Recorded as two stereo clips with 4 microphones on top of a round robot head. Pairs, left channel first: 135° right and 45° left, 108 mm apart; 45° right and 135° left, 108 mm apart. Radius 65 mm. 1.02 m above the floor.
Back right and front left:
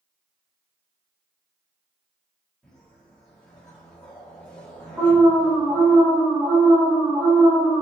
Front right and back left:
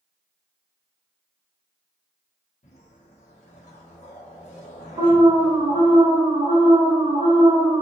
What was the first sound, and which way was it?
A whoosh, 55° right.